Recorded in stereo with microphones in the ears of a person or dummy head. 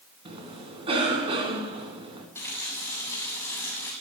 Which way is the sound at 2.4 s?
10° left (ahead or behind).